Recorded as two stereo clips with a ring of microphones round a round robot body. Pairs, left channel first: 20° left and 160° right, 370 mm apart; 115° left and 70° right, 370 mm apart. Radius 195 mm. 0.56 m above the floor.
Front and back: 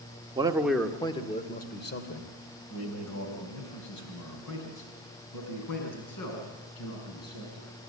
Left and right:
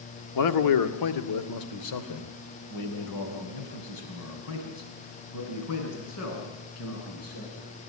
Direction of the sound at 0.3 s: 130° left.